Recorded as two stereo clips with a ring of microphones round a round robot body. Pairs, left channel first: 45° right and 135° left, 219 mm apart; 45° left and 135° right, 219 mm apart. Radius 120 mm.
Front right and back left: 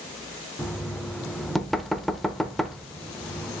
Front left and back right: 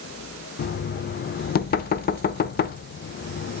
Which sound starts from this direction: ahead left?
Knocking, at 0.6 s.